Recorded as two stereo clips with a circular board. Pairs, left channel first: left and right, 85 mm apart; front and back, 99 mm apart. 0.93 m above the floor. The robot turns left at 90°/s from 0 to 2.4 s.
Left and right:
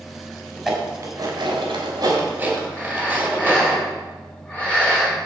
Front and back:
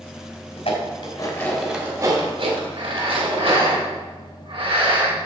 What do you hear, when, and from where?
0.6 s dishes clattering: straight ahead, 3 m; by 3.8 s 160° right, 3 m
2.8 s breathing: 165° left, 4.5 m